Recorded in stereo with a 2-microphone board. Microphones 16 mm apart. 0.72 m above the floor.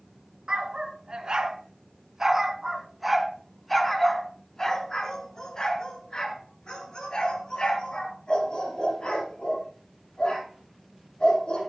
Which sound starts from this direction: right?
A dog barking, at 0.5 s.